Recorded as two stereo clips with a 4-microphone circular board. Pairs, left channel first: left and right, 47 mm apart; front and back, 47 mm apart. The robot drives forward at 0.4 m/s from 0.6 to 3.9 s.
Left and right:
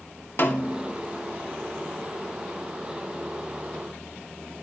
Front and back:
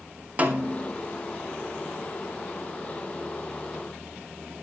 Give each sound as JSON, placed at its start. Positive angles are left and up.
{"t": 0.4, "sound": "a snare drum", "azimuth_deg": 125, "distance_m": 2.5}